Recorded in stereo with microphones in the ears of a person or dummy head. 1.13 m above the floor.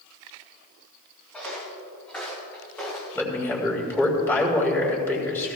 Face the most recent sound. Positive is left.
turn(degrees=10)  # may be behind; listen again after turning